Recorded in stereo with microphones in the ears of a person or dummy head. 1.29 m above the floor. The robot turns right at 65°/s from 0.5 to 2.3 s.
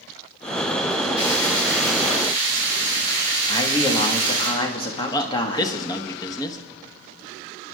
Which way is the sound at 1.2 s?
85° left.